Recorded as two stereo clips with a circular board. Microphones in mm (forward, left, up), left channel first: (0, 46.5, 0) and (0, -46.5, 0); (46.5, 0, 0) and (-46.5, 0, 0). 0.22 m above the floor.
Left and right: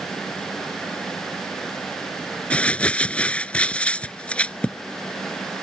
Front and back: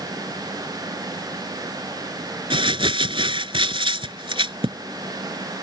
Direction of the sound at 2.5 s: 165° left.